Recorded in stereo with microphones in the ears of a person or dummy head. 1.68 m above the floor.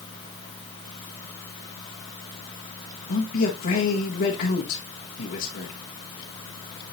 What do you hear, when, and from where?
3.1 s a man speaking: 55° left (ahead or behind), 1.7 m